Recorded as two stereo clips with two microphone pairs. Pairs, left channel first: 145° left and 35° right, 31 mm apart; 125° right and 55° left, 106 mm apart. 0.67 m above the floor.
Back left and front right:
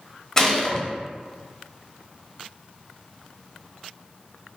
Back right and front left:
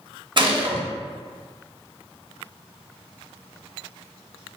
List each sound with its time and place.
0.4 s a gunshot: 75° left, 0.6 m